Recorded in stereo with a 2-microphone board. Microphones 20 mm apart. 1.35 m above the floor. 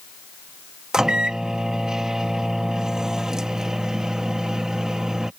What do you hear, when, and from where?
0.9 s a microwave: 40° right (ahead or behind)